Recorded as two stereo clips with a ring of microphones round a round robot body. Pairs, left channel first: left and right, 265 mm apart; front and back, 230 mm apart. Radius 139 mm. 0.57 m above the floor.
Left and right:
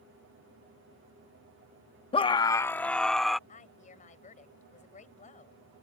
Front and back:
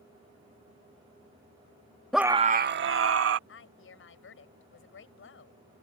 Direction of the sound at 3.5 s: 30° left.